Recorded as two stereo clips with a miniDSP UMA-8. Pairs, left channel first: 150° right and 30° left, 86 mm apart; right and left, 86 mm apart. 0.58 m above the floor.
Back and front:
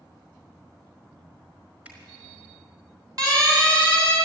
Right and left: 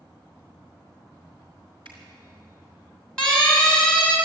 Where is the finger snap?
100° left, 5 m.